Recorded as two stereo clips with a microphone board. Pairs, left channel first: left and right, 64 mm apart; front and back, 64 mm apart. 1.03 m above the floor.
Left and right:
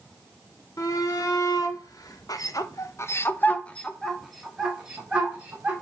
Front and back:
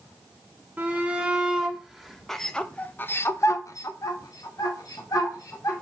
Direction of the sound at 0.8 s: 110° left.